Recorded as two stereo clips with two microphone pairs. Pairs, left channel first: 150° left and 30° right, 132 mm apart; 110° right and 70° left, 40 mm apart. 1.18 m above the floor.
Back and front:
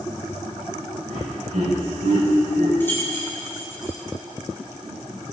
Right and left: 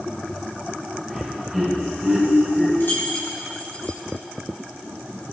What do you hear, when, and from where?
1.1 s laughter: 25° right, 6.5 m
2.8 s keys jangling: 135° right, 4 m